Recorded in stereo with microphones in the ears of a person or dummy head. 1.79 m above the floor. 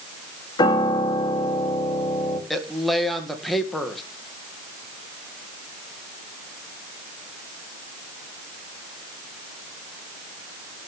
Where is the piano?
25° left (ahead or behind), 2.5 m.